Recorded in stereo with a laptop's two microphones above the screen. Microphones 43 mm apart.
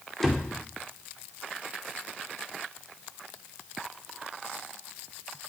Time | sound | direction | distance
0.2 | a door slam | 5° left (ahead or behind) | 2 m